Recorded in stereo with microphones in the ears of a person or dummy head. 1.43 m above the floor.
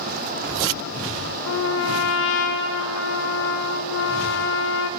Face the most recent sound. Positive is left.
turn(degrees=70)  # may be behind; listen again after turning